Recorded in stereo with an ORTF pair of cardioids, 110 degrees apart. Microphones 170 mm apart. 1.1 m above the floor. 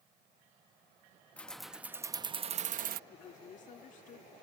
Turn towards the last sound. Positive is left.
turn(degrees=45)